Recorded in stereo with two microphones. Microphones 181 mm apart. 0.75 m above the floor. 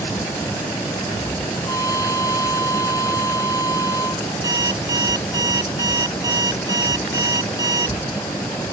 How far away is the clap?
No clap in this recording.